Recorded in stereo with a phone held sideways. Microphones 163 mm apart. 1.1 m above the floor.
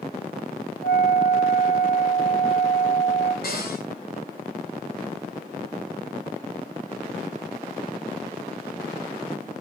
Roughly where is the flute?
Left.